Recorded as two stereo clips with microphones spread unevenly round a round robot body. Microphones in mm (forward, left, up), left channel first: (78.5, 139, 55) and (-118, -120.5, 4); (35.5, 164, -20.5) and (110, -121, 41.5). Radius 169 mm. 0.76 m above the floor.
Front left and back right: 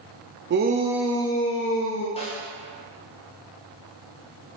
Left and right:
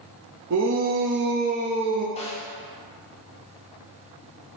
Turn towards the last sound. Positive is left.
turn(degrees=125)